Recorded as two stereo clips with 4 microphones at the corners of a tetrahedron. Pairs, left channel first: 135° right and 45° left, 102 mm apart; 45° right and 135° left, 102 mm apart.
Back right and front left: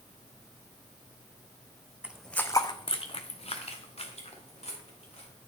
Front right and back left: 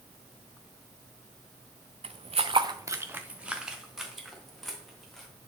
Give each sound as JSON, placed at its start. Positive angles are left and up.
{"t": 2.0, "sound": "footsteps", "azimuth_deg": 120, "distance_m": 0.6}